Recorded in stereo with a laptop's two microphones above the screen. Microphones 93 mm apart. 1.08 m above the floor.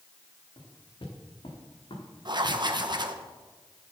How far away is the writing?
About 1.0 m.